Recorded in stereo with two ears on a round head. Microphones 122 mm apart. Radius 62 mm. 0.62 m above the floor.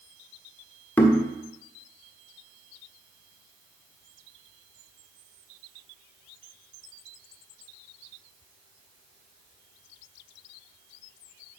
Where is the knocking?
15° left (ahead or behind), 1.3 m.